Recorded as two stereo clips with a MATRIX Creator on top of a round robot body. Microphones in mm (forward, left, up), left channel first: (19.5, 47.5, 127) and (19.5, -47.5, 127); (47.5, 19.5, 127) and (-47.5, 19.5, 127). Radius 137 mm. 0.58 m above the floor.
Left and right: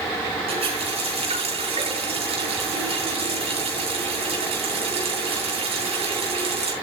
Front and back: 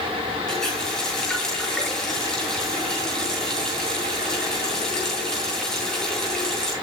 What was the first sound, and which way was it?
A running tap, 85° right.